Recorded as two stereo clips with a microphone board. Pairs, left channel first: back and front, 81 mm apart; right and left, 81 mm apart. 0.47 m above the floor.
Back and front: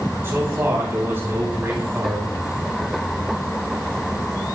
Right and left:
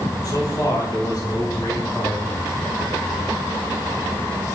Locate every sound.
0.2 s a man speaking: 60° right, 3 m